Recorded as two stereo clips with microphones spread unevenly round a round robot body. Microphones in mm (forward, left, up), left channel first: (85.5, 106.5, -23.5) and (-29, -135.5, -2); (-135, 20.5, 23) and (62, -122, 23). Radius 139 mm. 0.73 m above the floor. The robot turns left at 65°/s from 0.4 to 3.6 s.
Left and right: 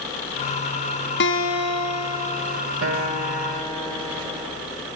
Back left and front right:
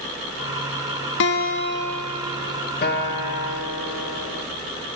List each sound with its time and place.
1.2 s a guitar: 105° left, 0.5 m; by 2.6 s 15° left, 0.5 m
2.8 s a guitar: 165° right, 1.7 m; by 4.5 s 145° left, 1.7 m